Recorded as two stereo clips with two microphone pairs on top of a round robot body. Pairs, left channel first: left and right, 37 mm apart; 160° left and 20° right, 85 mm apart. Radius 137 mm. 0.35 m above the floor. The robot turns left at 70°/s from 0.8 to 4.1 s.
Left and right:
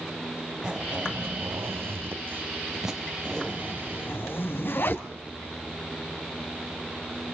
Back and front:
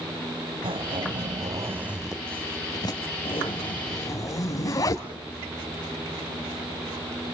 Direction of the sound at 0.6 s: 15° right.